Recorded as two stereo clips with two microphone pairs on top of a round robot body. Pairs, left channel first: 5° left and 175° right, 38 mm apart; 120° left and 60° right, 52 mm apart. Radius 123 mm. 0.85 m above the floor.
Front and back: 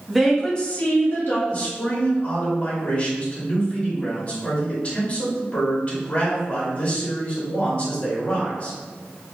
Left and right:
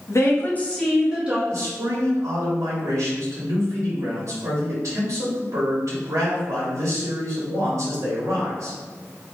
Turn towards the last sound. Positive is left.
turn(degrees=-55)